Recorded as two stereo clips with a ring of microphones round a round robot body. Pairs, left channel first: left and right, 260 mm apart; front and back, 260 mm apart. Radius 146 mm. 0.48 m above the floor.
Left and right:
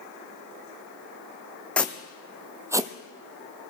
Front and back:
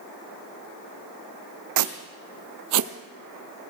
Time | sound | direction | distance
1.8 | footsteps | 175° left | 1.3 m